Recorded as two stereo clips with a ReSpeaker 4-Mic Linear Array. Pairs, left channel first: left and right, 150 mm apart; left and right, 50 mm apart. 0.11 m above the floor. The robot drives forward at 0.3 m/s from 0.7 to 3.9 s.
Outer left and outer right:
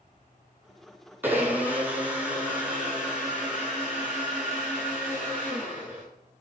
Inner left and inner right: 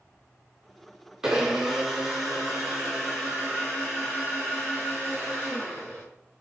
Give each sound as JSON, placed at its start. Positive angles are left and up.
{"t": 1.2, "sound": "a blender", "side_deg": -15, "distance_m": 0.7}